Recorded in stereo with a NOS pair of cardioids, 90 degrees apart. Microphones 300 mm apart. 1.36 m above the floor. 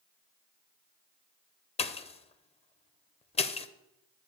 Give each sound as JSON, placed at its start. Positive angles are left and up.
{"t": 1.8, "sound": "a pop", "azimuth_deg": 20, "distance_m": 0.6}